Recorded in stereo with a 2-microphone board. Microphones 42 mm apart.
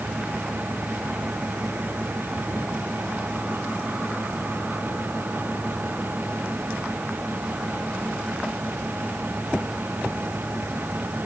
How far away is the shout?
No shout in this recording.